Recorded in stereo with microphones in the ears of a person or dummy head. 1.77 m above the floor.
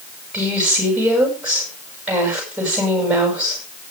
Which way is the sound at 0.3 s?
5° right (ahead or behind).